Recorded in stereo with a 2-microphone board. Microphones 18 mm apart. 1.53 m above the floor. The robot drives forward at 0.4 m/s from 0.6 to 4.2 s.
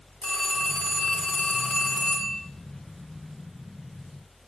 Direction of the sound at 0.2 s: 65° left (ahead or behind).